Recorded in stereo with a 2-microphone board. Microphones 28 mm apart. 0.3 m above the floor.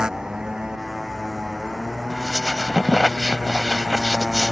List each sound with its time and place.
0.0 s a motorcycle: 30° right (ahead or behind)
2.1 s a squeak: 20° right (ahead or behind)